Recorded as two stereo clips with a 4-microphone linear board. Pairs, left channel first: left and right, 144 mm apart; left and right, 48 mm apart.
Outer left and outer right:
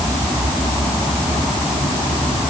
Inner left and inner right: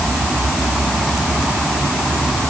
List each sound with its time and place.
Only background noise.